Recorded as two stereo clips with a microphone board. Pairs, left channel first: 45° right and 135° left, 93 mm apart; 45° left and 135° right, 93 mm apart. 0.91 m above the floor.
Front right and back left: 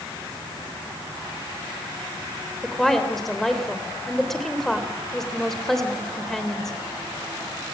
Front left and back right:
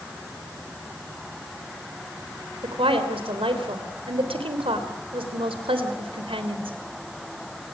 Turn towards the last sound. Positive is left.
turn(degrees=-130)